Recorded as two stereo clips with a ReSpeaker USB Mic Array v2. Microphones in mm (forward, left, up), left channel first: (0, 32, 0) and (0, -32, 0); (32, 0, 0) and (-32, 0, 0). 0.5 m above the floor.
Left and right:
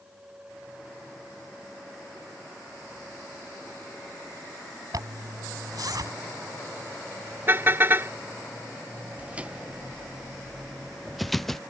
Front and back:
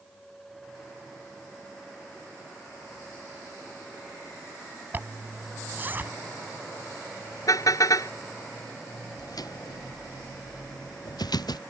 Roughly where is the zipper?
Behind right.